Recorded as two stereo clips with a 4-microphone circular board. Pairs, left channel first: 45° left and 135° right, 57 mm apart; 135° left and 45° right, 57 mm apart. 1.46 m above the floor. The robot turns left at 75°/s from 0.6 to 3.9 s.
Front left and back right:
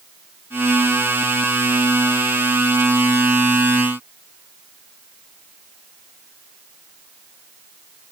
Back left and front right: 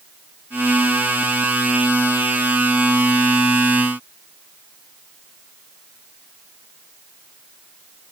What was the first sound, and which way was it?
Only background noise.